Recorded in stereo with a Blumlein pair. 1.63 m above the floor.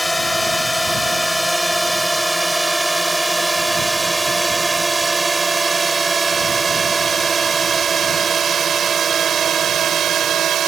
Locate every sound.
0.0 s a drone: 5° left; by 10.7 s 25° right